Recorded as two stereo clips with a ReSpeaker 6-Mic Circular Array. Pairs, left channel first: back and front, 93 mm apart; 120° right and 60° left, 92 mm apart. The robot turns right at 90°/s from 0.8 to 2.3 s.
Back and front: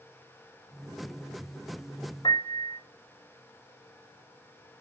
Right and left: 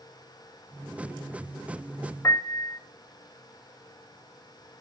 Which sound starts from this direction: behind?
A piano, at 2.2 s.